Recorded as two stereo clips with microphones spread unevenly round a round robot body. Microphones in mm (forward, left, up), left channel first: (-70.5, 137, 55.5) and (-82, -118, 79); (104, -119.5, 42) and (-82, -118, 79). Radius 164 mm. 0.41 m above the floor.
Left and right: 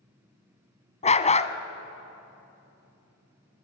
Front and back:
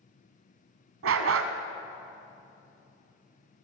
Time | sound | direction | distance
1.0 | a dog barking | 155° left | 1.1 m